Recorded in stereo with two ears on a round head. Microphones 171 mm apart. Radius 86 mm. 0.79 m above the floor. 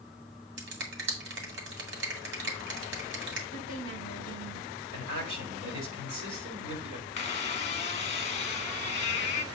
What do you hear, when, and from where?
0.6 s a finger snap: 65° right (ahead or behind), 2 m
3.5 s a woman speaking: 80° right, 6 m
4.9 s a man speaking: 80° right, 3.5 m
7.2 s a squeak: 35° left (ahead or behind), 1.0 m